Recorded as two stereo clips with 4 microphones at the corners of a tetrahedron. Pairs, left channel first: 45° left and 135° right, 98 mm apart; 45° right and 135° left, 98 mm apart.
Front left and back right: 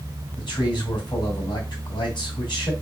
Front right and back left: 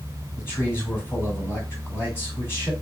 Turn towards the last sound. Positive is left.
turn(degrees=15)